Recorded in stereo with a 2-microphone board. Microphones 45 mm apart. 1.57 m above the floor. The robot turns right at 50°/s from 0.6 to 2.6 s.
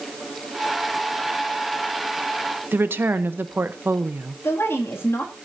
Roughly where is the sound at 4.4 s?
Left.